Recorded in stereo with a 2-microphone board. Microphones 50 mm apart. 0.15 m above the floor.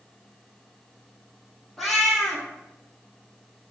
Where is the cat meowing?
Centre (ahead or behind), 1.7 m.